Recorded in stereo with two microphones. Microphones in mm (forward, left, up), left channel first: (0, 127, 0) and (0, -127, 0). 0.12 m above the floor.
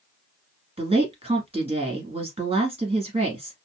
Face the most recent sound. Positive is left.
turn(degrees=-25)  # may be behind; listen again after turning